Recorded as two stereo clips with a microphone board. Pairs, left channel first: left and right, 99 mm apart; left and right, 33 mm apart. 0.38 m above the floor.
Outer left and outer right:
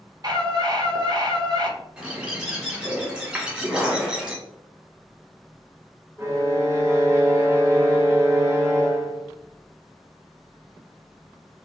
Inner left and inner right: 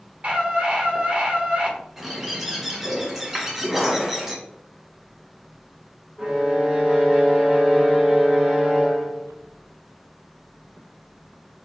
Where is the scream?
40° right (ahead or behind), 1.2 m.